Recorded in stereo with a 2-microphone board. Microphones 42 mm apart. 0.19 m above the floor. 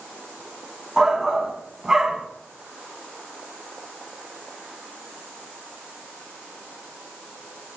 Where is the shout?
15° right (ahead or behind), 1.4 m.